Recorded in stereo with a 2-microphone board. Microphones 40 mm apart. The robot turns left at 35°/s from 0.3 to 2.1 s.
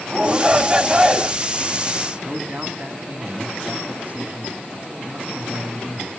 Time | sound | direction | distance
0.1 | a shout | 20° right (ahead or behind) | 1.2 m
2.2 | a man speaking | 40° right (ahead or behind) | 1.4 m